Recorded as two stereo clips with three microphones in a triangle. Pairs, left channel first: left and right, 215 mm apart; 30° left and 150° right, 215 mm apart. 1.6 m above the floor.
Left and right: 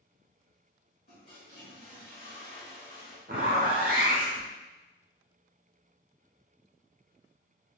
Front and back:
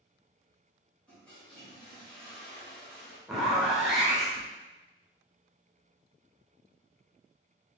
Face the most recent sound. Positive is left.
turn(degrees=-60)